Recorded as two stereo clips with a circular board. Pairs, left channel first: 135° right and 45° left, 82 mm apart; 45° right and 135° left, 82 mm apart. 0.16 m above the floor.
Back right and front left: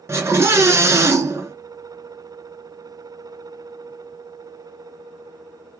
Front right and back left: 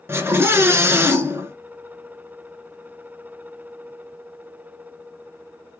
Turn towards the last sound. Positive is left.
turn(degrees=90)